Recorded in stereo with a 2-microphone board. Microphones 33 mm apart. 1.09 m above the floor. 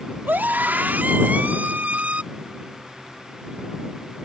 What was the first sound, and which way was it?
A scream, 80° right.